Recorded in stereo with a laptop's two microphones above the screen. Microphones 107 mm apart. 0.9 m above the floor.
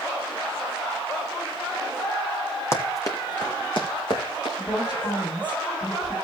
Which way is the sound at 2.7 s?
25° left (ahead or behind).